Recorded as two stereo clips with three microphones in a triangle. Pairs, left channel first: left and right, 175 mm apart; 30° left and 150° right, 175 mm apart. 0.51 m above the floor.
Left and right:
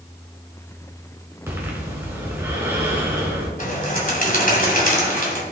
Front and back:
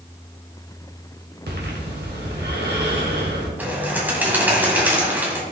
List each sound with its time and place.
1.5 s breathing: 170° right, 3 m
3.6 s a bird: 130° left, 2.5 m